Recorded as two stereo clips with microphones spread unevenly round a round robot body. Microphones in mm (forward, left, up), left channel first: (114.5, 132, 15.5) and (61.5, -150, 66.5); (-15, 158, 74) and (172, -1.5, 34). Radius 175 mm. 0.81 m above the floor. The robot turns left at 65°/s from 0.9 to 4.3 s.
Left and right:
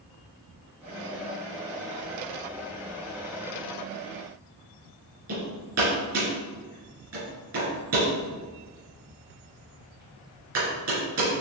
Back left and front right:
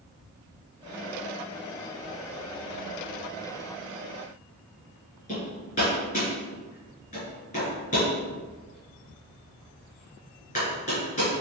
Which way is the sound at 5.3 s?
155° right.